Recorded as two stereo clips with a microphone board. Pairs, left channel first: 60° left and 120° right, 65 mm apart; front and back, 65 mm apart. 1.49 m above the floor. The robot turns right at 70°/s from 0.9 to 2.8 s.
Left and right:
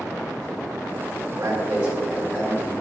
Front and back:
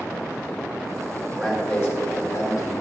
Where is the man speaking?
85° right, 3 m; by 2.7 s 10° left, 3 m.